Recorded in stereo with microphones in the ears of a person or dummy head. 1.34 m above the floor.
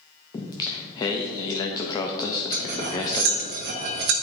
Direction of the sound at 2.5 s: 45° right (ahead or behind).